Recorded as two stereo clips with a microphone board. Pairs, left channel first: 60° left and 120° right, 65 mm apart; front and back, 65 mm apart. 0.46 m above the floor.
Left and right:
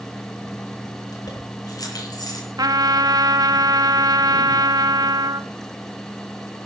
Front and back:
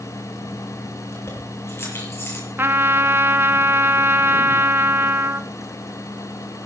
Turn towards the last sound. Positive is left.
turn(degrees=-125)